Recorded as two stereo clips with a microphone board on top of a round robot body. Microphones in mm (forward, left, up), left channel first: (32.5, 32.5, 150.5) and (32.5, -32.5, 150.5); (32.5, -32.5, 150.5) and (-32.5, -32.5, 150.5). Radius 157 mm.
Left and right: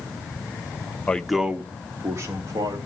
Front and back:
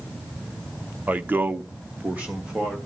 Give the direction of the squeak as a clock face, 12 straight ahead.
No squeak in this recording.